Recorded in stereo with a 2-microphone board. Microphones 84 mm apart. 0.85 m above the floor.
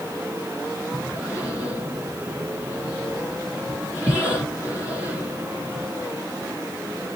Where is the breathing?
15° right (ahead or behind), 1.5 m.